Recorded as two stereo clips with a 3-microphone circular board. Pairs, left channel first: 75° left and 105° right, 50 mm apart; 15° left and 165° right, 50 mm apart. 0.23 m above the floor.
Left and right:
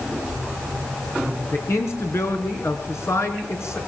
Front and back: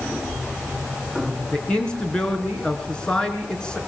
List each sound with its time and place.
1.5 s a man speaking: 85° left, 3.5 m